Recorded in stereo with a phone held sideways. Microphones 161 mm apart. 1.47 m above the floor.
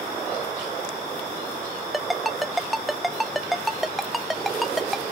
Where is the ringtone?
Centre (ahead or behind).